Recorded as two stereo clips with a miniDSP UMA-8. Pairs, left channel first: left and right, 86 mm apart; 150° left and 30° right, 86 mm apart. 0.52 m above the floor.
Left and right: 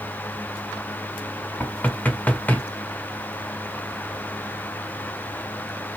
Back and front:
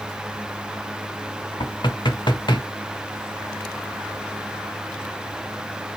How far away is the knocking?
About 1.3 m.